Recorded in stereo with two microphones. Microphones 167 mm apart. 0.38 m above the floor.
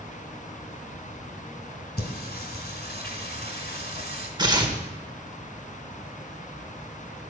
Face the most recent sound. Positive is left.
turn(degrees=-25)  # may be behind; listen again after turning